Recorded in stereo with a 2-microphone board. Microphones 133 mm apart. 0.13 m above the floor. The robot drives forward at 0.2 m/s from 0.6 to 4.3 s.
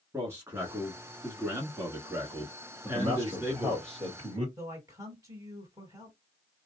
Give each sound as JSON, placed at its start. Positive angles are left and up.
{"t": 0.1, "sound": "a man speaking", "side_deg": -20, "distance_m": 1.2}
{"t": 2.8, "sound": "a man speaking", "side_deg": -35, "distance_m": 2.0}
{"t": 4.6, "sound": "a man speaking", "side_deg": -25, "distance_m": 3.0}